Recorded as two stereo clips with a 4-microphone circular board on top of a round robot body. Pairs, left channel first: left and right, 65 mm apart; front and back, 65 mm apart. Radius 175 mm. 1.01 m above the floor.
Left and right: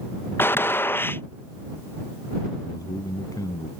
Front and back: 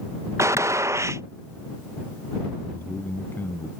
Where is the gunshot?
140° left.